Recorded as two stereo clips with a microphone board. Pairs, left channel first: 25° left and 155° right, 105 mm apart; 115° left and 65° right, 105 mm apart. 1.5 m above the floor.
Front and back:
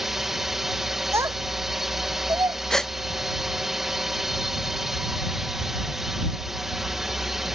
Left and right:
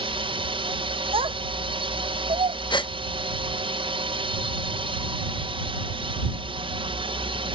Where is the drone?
70° right.